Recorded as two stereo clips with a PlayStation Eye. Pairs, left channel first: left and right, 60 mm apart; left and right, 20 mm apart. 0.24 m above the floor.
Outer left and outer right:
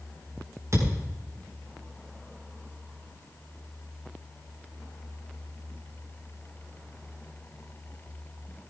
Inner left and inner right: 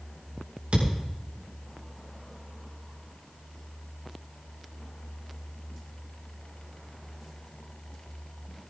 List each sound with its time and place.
0.7 s a thud: 60° right (ahead or behind), 7 m